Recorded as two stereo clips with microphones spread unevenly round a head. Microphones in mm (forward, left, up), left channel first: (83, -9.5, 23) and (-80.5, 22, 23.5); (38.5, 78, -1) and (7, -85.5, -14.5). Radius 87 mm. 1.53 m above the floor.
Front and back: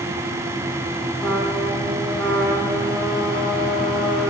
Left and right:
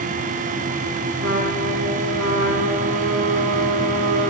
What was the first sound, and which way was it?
A trumpet, 95° right.